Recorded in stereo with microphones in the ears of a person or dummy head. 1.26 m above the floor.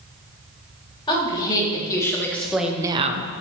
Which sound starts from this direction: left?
A woman speaking, at 1.1 s.